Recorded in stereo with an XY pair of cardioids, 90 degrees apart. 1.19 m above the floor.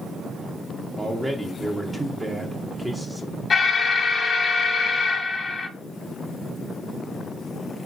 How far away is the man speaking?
About 0.6 m.